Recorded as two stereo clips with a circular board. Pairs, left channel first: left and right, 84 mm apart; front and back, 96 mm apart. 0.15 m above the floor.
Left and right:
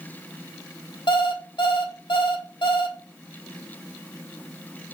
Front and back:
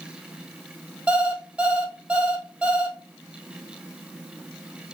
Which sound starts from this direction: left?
An alarm clock, at 1.1 s.